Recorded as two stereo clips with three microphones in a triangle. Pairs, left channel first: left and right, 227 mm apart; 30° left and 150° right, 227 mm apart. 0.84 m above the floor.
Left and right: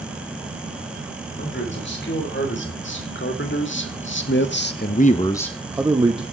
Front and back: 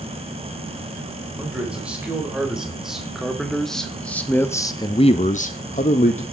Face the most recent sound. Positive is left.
turn(degrees=-25)